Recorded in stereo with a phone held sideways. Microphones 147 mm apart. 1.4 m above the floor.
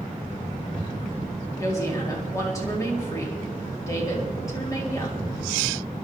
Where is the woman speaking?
20° left (ahead or behind), 3.5 m.